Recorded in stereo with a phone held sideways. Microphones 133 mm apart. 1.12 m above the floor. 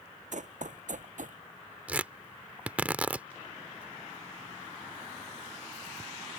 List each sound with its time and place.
0.3 s running footsteps: 65° right (ahead or behind); by 1.4 s 70° right (ahead or behind)
1.9 s tearing paper: 10° right (ahead or behind)